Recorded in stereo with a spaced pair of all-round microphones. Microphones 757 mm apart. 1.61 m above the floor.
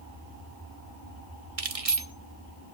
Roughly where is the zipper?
I don't hear a zipper.